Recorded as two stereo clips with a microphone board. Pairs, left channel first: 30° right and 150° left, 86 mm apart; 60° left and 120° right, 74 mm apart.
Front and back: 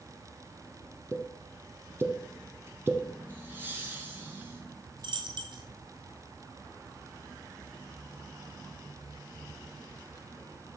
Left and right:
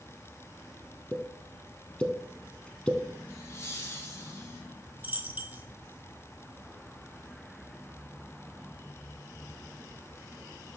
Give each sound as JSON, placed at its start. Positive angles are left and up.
{"t": 1.1, "sound": "a pop", "azimuth_deg": 125, "distance_m": 1.1}
{"t": 3.3, "sound": "laughter", "azimuth_deg": 95, "distance_m": 1.9}
{"t": 5.0, "sound": "a dropped coin", "azimuth_deg": 170, "distance_m": 1.1}